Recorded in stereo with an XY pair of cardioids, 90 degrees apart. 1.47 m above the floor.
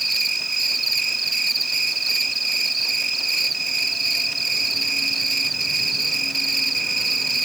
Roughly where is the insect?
Ahead right.